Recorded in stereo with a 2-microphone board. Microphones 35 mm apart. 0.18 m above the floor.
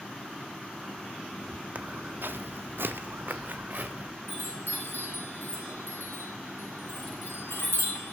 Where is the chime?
85° left, 4.5 m.